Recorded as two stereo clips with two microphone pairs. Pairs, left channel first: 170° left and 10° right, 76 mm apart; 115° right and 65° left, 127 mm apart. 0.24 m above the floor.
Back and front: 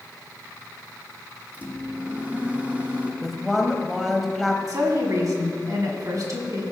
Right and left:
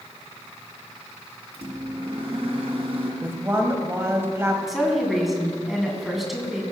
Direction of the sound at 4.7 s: 25° right.